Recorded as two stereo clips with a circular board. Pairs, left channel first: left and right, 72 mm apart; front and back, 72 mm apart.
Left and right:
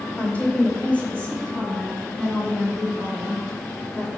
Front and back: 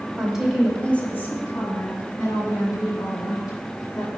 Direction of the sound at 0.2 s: 120° left.